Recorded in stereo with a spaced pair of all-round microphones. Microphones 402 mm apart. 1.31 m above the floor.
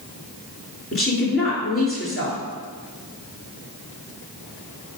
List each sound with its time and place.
0.9 s a woman speaking: 30° left (ahead or behind), 3.5 m